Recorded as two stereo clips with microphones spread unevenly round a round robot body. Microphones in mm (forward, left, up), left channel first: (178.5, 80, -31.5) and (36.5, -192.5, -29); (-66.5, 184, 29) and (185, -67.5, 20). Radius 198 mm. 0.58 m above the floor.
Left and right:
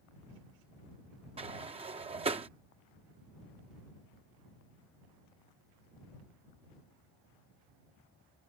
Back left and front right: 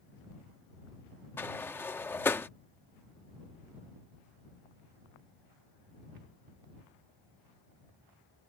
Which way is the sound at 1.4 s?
150° right.